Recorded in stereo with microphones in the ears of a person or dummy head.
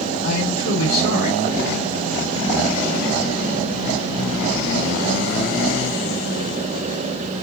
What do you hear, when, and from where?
0.2 s a man speaking: 55° left (ahead or behind), 2.0 m